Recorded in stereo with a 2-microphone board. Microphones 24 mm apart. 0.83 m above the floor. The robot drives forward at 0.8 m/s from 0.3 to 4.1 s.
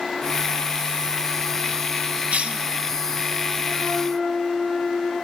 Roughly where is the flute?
Centre.